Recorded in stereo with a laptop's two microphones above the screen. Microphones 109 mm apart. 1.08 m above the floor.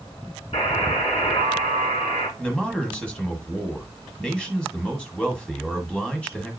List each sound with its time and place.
0.5 s a buzzer: 65° left (ahead or behind), 5 m
2.4 s a man speaking: 10° left (ahead or behind), 1.3 m